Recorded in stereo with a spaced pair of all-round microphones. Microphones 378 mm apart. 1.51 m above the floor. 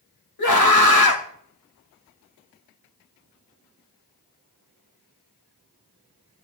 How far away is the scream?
About 3 m.